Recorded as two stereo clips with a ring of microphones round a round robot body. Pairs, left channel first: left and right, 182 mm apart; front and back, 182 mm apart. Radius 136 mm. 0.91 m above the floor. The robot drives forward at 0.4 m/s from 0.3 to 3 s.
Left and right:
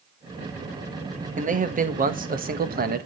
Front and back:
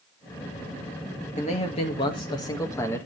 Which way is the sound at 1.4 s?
50° right.